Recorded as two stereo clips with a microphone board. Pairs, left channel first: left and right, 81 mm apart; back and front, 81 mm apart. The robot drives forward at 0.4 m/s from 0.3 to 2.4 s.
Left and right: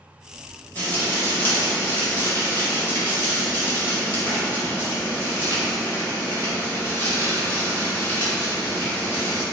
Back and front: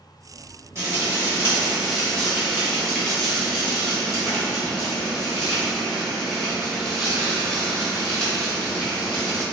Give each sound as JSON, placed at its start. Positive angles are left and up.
{"t": 0.8, "sound": "frying", "azimuth_deg": 30, "distance_m": 0.9}